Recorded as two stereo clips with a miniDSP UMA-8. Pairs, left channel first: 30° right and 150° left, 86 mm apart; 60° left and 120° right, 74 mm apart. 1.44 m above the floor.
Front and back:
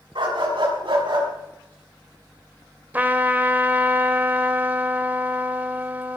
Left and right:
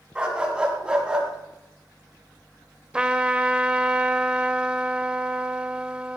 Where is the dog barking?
165° left, 5.5 m; by 1.3 s 160° left, 4.5 m.